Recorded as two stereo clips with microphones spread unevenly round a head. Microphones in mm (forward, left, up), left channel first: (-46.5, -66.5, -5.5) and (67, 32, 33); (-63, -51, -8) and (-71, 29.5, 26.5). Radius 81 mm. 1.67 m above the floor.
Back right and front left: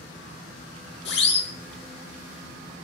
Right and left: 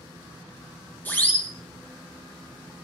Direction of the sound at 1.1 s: 150° right.